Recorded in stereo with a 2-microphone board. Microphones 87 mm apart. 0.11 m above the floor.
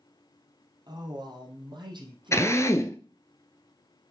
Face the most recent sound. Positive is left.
turn(degrees=35)  # may be behind; listen again after turning